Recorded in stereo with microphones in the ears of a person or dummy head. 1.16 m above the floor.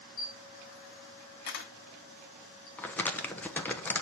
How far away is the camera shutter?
About 1.3 m.